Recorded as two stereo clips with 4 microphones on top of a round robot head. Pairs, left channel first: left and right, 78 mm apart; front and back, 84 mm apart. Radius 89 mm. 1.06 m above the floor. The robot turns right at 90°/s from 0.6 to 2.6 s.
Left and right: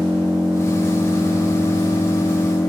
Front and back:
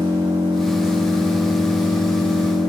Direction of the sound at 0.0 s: 170° right.